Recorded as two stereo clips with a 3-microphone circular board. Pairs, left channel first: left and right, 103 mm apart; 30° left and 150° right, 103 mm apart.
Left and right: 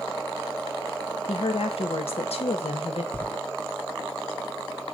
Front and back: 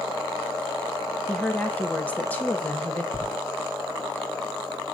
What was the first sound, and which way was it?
A woman speaking, 105° left.